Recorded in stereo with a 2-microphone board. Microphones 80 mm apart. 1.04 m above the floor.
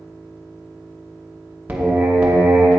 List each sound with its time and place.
1.7 s singing: 20° right (ahead or behind), 0.9 m